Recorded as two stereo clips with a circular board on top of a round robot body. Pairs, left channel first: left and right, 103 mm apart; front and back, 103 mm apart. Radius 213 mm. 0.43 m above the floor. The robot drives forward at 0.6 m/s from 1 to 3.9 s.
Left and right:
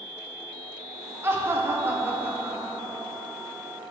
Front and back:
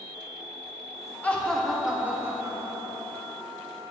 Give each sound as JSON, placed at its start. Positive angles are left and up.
{"t": 1.2, "sound": "laughter", "azimuth_deg": -55, "distance_m": 1.1}